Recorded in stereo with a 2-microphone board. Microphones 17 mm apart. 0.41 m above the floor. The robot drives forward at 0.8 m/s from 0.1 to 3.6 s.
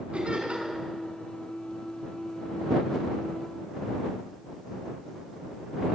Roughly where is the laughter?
Right.